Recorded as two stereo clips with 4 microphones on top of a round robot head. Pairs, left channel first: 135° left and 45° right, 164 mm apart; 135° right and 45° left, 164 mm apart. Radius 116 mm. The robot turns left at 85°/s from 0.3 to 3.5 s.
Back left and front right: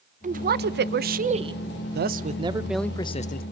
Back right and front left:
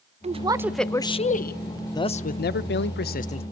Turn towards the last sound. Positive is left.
turn(degrees=160)